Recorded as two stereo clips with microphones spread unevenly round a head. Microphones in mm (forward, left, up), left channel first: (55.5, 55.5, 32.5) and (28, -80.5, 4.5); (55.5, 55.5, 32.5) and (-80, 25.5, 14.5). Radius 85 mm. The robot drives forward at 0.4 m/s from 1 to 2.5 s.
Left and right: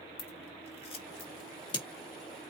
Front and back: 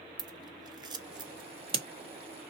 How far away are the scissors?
About 1.5 m.